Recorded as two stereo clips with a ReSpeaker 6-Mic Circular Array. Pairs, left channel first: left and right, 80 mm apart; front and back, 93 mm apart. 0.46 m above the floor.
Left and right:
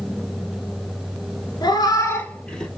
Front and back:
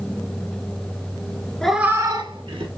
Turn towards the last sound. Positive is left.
turn(degrees=170)